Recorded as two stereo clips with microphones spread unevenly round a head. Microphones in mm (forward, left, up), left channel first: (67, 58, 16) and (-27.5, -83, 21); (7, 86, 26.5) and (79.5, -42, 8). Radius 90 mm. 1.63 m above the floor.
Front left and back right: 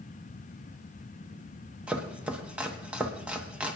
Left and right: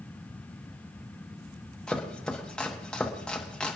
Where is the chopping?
170° left, 1.0 m.